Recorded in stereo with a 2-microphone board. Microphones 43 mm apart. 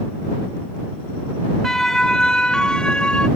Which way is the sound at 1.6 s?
10° left (ahead or behind).